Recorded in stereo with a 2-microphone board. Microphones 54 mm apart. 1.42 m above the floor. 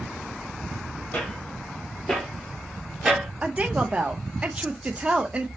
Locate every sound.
1.1 s footsteps: 30° left (ahead or behind), 1.8 m; by 3.3 s 15° right (ahead or behind), 1.5 m
3.4 s a woman speaking: 25° right (ahead or behind), 0.7 m